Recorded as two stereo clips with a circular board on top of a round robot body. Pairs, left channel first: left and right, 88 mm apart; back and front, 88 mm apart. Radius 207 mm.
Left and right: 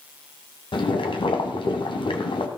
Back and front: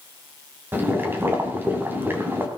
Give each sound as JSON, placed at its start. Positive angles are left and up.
{"t": 0.7, "sound": "boiling", "azimuth_deg": 65, "distance_m": 2.5}